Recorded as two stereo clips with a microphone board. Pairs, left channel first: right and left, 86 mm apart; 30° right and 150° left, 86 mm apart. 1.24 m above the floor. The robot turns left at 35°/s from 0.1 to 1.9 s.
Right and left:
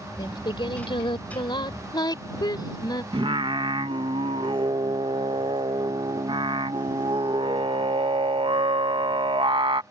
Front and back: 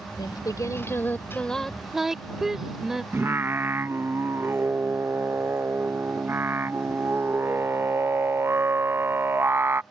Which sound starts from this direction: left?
Singing, at 3.1 s.